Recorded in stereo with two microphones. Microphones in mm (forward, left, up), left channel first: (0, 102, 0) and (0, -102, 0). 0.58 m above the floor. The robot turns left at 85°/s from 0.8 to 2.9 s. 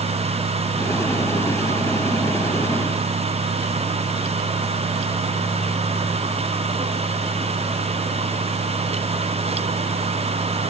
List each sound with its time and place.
Only background noise.